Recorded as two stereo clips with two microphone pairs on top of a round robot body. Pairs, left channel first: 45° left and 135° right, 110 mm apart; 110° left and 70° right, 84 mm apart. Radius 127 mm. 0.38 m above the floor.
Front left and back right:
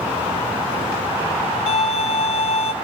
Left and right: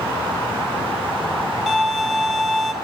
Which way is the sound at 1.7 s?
15° left.